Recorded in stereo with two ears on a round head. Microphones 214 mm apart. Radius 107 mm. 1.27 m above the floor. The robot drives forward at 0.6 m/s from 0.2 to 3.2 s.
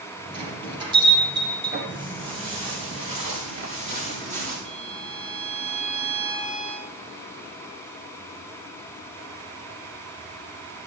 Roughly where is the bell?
Centre.